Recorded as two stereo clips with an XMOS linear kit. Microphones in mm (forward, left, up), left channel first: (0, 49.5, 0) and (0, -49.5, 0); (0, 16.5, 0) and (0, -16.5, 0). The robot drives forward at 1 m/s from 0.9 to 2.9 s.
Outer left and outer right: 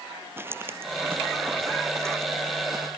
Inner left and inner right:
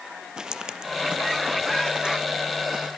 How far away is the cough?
No cough in this recording.